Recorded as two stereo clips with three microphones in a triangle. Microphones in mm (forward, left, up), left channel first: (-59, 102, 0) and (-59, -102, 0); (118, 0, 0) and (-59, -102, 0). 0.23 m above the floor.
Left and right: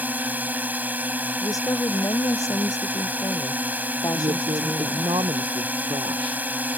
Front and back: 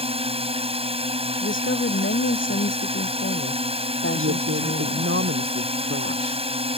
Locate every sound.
0.0 s a drone: 165° right
1.4 s a woman speaking: 15° left
4.1 s a woman speaking: 155° right